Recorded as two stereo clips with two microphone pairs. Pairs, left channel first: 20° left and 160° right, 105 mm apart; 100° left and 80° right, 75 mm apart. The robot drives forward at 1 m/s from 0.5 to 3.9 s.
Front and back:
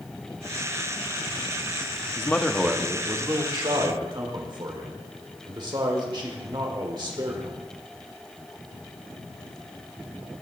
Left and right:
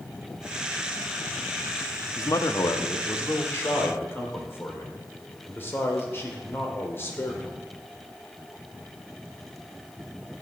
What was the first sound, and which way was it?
A man speaking, 80° left.